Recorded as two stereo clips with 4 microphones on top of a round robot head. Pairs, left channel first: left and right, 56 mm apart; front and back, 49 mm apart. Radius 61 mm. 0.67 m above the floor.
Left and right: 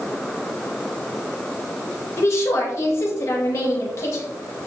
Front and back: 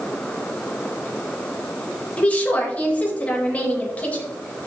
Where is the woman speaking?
55° left, 4 m.